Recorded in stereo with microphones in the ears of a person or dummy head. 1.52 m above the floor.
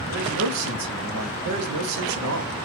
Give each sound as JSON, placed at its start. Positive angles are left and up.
{"t": 0.1, "sound": "a man speaking", "side_deg": -80, "distance_m": 0.7}